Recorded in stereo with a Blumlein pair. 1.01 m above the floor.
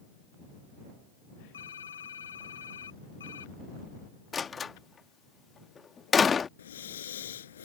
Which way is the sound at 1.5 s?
70° left.